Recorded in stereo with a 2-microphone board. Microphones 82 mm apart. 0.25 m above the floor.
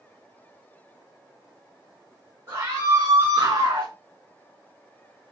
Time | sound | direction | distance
2.5 | a scream | 40° right (ahead or behind) | 2 m